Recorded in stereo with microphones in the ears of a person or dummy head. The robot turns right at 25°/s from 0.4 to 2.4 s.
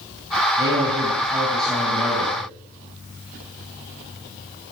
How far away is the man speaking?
About 7.5 m.